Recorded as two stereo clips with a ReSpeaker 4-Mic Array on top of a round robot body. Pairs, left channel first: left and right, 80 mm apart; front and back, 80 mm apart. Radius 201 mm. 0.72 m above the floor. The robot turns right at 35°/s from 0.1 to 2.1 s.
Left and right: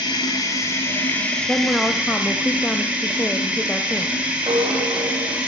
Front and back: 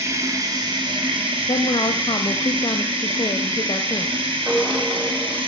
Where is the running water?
120° left, 1.7 m; by 5.5 s 170° right, 1.7 m.